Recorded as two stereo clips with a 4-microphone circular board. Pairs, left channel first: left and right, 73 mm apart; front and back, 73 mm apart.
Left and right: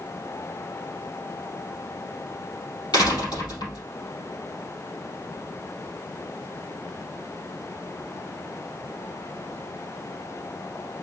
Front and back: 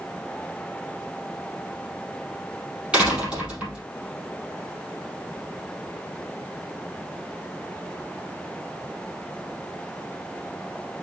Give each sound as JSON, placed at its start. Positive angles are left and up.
{"t": 2.9, "sound": "a door slam", "azimuth_deg": 105, "distance_m": 4.0}